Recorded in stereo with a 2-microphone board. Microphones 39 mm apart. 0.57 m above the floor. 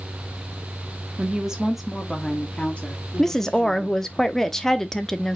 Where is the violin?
No violin in this recording.